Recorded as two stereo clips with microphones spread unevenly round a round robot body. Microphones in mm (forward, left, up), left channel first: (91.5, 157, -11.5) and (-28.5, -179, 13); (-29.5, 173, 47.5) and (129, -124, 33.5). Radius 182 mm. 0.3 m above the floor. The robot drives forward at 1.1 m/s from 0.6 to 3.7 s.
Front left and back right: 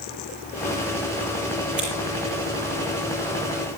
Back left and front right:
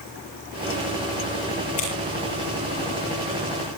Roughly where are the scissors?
Behind.